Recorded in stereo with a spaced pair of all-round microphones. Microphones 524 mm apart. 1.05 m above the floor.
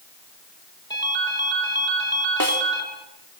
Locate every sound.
0.9 s a ringtone: 5° left (ahead or behind), 7 m
2.4 s a snare drum: 40° right (ahead or behind), 2.5 m